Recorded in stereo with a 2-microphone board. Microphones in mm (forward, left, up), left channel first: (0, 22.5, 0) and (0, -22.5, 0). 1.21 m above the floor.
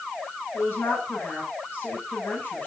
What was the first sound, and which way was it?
A woman speaking, 45° left (ahead or behind).